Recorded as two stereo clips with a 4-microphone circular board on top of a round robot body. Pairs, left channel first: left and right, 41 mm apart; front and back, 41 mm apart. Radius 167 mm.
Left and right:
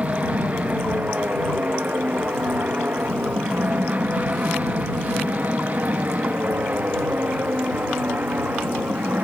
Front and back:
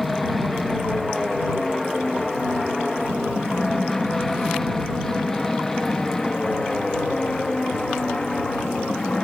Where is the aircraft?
85° right; by 9.2 s 65° right.